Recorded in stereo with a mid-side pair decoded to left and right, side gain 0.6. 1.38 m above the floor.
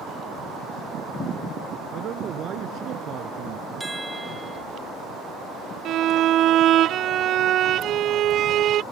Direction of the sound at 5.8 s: 55° right.